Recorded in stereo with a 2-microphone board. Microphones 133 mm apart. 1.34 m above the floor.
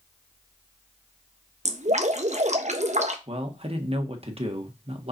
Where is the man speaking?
45° right (ahead or behind), 1.6 m.